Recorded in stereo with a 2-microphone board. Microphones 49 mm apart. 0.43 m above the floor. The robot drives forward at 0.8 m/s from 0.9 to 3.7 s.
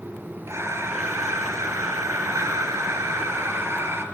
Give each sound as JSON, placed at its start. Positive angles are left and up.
{"t": 0.5, "sound": "breathing", "side_deg": -65, "distance_m": 2.5}